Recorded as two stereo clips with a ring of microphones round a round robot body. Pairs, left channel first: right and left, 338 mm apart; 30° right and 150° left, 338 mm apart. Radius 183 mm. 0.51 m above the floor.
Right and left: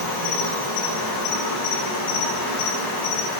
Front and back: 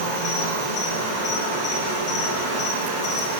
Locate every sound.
0.0 s an insect: 75° right, 5.5 m